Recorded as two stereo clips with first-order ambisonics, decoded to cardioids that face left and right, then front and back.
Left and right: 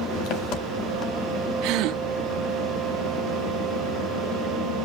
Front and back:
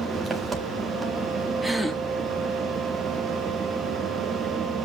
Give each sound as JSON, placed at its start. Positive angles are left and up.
{"t": 0.0, "sound": "an engine running", "azimuth_deg": 110, "distance_m": 1.8}
{"t": 1.6, "sound": "a gasp", "azimuth_deg": -95, "distance_m": 1.2}